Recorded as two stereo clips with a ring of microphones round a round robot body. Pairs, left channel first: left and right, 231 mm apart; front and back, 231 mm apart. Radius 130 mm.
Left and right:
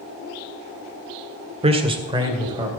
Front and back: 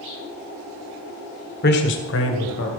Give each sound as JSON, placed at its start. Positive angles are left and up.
{"t": 1.6, "sound": "a man speaking", "azimuth_deg": -35, "distance_m": 1.4}